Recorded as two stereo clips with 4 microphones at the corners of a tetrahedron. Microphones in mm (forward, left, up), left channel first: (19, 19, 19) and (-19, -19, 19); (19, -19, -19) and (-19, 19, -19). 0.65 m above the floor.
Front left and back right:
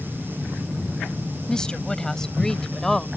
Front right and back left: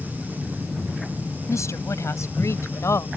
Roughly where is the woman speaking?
Ahead right.